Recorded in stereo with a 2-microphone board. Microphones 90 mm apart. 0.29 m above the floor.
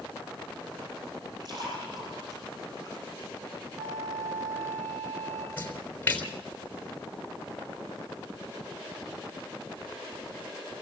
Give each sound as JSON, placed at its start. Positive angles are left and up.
{"t": 1.4, "sound": "a splash", "side_deg": -50, "distance_m": 7.5}
{"t": 3.8, "sound": "a flute", "side_deg": -35, "distance_m": 5.5}
{"t": 5.6, "sound": "a splash", "side_deg": 20, "distance_m": 3.5}